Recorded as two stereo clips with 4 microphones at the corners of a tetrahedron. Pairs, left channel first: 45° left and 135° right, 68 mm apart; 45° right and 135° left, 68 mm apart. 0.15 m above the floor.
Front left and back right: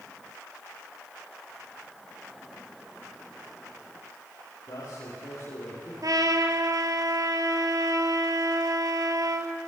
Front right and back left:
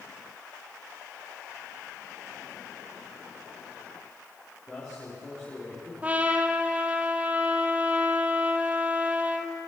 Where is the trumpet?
160° right, 1.4 m.